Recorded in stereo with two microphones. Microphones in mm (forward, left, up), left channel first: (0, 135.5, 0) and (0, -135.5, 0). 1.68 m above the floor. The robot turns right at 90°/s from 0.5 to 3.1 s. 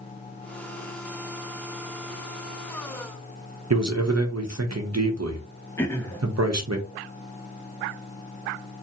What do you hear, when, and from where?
3.7 s a man speaking: 70° right (ahead or behind), 0.8 m
5.8 s throat clearing: 10° left (ahead or behind), 0.8 m